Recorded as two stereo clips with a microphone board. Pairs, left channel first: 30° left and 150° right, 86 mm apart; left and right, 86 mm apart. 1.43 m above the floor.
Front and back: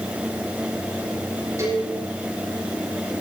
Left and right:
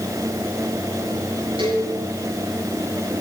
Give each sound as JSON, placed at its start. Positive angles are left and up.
{"t": 1.6, "sound": "a cowbell", "azimuth_deg": -95, "distance_m": 7.0}